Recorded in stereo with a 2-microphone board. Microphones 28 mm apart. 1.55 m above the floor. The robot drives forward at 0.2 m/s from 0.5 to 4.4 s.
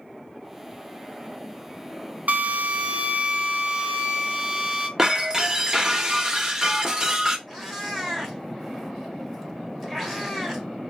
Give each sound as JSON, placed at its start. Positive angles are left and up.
{"t": 2.3, "sound": "a drill", "side_deg": -60, "distance_m": 0.5}
{"t": 5.0, "sound": "breaking glass", "side_deg": -20, "distance_m": 0.8}
{"t": 7.5, "sound": "a cat meowing", "side_deg": 5, "distance_m": 1.3}